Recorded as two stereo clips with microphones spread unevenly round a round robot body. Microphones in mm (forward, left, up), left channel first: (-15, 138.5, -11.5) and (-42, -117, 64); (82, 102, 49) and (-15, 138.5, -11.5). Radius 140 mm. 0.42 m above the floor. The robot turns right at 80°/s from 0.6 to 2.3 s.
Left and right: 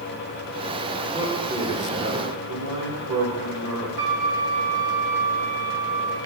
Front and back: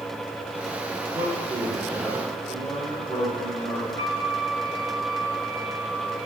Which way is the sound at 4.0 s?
95° right.